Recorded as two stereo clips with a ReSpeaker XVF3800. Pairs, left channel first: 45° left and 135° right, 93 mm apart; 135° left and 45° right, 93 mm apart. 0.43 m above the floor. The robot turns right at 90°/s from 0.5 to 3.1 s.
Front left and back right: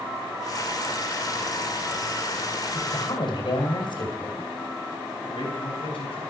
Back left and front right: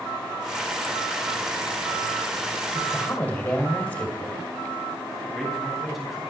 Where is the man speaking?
45° left, 3.5 m.